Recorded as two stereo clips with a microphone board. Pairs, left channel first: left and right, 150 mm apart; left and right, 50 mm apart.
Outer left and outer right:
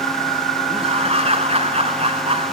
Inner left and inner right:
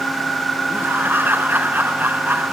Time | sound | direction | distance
0.7 | laughter | 45° right (ahead or behind) | 1.9 m